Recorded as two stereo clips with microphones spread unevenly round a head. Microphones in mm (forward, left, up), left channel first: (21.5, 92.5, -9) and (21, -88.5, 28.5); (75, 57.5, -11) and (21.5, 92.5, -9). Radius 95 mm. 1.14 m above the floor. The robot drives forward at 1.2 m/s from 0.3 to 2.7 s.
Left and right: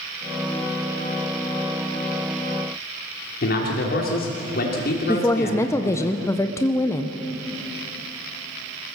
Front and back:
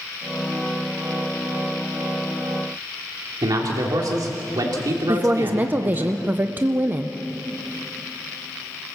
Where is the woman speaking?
120° left, 0.7 m.